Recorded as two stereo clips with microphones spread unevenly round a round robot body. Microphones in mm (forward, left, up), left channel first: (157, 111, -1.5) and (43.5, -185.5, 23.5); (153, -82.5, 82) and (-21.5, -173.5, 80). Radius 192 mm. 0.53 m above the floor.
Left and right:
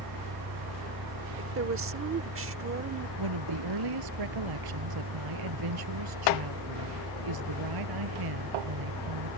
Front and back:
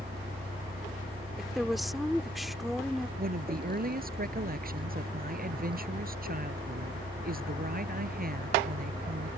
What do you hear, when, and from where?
0.0 s a vehicle: 85° right
1.4 s a woman speaking: 65° right
3.2 s a woman speaking: 110° right